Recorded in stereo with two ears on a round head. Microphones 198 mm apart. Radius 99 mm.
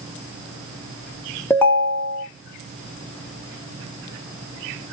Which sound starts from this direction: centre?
A ringtone, at 1.5 s.